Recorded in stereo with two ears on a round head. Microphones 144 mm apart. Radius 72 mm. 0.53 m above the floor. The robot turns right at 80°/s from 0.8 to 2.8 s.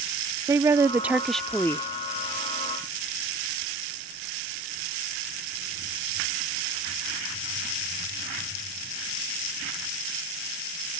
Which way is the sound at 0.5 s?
15° right (ahead or behind).